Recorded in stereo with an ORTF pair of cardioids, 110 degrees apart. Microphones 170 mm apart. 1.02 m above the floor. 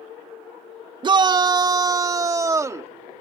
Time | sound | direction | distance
1.0 | a shout | 30° right | ?